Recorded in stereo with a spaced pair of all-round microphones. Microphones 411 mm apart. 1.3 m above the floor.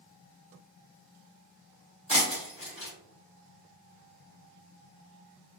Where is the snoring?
No snoring in this recording.